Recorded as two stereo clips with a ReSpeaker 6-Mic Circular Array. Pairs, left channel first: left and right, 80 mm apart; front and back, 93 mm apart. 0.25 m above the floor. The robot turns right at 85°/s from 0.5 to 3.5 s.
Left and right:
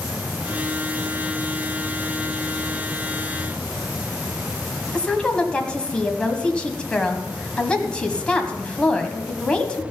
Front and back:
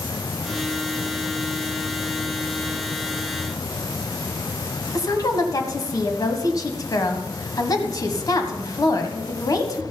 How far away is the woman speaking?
About 1.3 m.